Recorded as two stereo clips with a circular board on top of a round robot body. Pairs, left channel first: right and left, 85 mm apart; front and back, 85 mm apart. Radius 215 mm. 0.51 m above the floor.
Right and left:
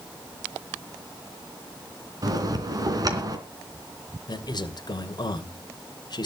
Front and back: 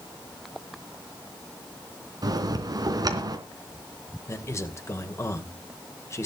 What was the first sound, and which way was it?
A bell, 135° left.